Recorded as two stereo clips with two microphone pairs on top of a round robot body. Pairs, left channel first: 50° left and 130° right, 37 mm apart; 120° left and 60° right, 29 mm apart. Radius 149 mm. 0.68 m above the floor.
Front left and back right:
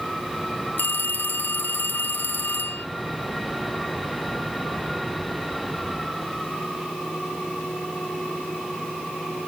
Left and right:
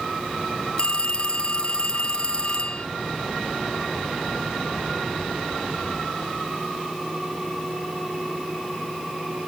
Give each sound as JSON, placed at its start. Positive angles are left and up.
{"t": 0.8, "sound": "a phone ringing", "azimuth_deg": 65}